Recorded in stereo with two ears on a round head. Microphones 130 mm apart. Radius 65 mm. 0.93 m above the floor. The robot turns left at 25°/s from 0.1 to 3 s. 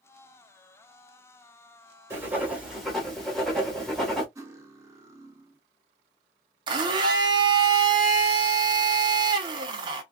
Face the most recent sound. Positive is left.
turn(degrees=-30)  # may be behind; listen again after turning